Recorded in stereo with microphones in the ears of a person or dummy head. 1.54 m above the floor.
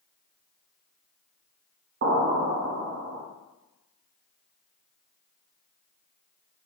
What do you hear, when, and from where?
2.0 s an explosion: 50° right (ahead or behind), 0.6 m